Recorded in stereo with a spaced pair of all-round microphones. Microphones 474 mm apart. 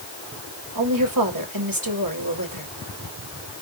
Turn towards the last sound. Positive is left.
turn(degrees=-40)  # may be behind; listen again after turning